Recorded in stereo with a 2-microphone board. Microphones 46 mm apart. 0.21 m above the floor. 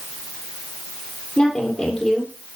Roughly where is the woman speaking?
Centre.